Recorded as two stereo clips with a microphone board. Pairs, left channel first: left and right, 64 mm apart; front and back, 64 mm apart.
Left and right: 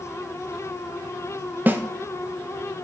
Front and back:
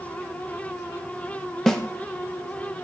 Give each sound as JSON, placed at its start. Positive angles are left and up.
{"t": 1.7, "sound": "a snare drum", "azimuth_deg": -75, "distance_m": 0.6}